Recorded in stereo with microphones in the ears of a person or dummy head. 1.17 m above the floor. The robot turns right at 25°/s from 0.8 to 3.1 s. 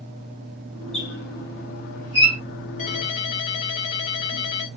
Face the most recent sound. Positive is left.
turn(degrees=35)  # may be behind; listen again after turning